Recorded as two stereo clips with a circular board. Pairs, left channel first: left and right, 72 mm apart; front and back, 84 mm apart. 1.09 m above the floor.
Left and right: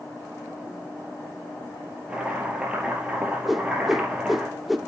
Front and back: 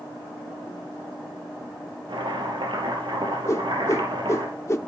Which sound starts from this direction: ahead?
A whoosh, at 3.5 s.